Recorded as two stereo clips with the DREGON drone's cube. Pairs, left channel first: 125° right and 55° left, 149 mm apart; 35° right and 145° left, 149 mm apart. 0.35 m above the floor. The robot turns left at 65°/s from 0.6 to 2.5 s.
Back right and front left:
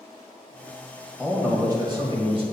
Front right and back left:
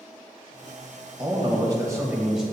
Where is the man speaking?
135° left, 1.6 m; by 2.4 s 55° left, 1.6 m.